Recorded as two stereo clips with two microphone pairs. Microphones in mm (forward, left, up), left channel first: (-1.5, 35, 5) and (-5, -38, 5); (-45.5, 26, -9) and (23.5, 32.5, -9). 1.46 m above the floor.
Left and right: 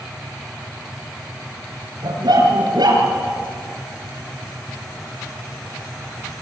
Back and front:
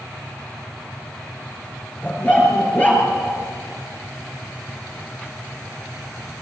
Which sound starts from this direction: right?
A dog barking, at 2.0 s.